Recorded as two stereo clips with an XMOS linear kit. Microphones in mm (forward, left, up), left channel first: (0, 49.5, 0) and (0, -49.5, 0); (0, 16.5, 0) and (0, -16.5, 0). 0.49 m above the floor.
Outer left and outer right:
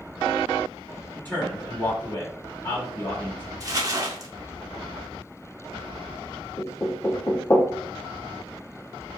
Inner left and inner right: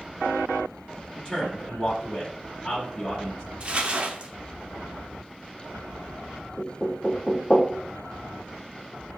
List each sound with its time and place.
1.1 s a man speaking: 20° left (ahead or behind), 1.7 m
3.6 s crumpling: 35° right (ahead or behind), 0.6 m
6.6 s knocking: 35° left (ahead or behind), 0.7 m